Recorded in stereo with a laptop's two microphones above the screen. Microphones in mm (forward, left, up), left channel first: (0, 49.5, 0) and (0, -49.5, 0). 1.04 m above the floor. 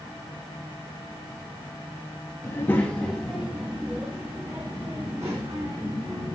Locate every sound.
2.4 s a child speaking: 30° left (ahead or behind), 0.8 m; by 6.3 s 40° right (ahead or behind), 2 m